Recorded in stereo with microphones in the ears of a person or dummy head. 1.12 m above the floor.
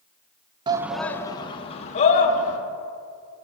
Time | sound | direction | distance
0.7 | a shout | 20° right (ahead or behind) | 0.6 m